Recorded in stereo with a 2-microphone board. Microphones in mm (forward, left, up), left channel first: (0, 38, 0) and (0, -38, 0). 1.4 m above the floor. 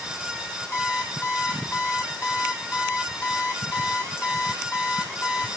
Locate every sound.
0.7 s an alarm clock: 35° left (ahead or behind), 1.5 m